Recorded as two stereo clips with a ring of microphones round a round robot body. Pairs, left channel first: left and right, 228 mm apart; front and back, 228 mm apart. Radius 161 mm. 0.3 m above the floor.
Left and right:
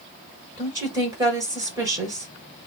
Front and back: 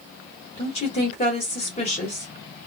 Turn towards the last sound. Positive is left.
turn(degrees=-30)